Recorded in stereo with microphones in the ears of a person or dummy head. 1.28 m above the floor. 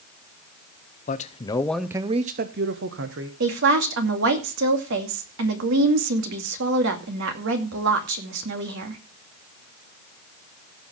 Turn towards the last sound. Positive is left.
turn(degrees=-65)  # may be behind; listen again after turning